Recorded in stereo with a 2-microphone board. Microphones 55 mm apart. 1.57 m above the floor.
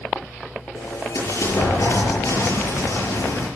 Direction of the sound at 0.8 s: 75° left (ahead or behind).